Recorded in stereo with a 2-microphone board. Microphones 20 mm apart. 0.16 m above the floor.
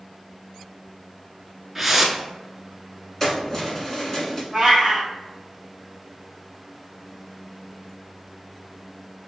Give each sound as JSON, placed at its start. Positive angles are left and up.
{"t": 1.8, "sound": "a whoosh", "side_deg": -5, "distance_m": 0.7}
{"t": 3.2, "sound": "keys jangling", "side_deg": 20, "distance_m": 1.4}
{"t": 4.5, "sound": "a cat meowing", "side_deg": -10, "distance_m": 1.7}